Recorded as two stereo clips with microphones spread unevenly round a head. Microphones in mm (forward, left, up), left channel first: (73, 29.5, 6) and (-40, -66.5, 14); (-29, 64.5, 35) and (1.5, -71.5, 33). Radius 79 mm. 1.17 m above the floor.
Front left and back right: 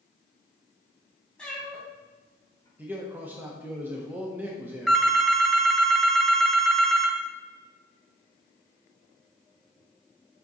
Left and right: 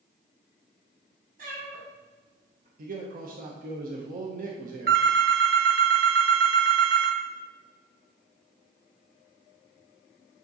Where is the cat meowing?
45° right, 3.5 m; by 2.7 s 30° right, 3 m.